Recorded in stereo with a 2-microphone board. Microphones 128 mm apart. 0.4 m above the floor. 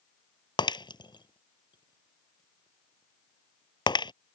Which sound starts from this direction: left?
Breaking glass, at 0.6 s.